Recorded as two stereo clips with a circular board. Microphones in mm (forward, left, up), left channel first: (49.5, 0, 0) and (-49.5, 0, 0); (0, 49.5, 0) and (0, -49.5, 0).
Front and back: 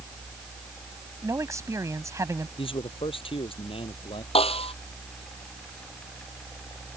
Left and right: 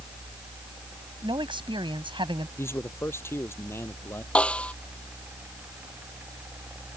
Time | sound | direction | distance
1.2 | a man speaking | 120° right | ?
2.6 | a man speaking | 25° left | ?
4.3 | a snare drum | 10° left | ?